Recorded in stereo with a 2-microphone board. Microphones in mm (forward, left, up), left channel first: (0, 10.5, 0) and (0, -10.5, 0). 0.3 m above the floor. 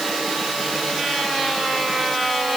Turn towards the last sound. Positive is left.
No sound to turn to.